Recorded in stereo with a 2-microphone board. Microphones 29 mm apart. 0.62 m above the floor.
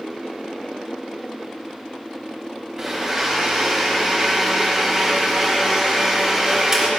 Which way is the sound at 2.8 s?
20° right (ahead or behind).